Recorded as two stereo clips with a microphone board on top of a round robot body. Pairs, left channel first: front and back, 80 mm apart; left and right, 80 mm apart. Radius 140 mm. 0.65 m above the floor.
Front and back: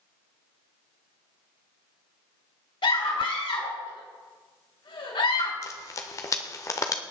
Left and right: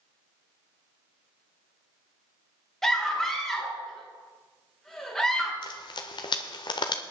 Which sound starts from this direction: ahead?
A scream, at 2.8 s.